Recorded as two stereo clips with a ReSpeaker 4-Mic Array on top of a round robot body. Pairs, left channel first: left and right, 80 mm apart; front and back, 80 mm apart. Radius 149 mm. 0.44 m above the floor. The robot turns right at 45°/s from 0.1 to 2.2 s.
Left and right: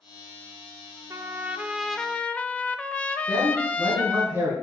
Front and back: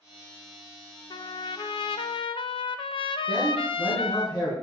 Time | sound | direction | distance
1.1 | a trumpet | 35° right | 0.5 m
3.3 | a man speaking | 30° right | 5 m